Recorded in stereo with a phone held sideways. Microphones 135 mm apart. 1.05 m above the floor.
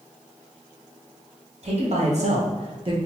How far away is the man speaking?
About 1.0 m.